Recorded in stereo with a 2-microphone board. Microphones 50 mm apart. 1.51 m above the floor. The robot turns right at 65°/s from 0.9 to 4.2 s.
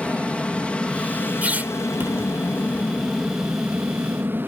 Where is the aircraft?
25° left (ahead or behind); by 4.5 s 45° right (ahead or behind).